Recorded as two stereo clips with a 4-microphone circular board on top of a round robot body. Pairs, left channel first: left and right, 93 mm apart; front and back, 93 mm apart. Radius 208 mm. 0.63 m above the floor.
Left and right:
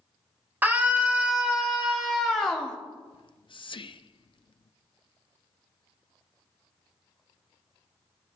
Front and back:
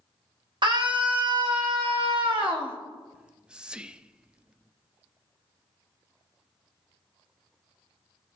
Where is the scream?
160° right, 2.5 m; by 2.8 s 170° left, 2.5 m.